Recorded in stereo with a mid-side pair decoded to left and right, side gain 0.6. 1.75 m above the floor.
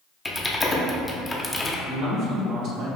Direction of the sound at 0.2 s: 15° left.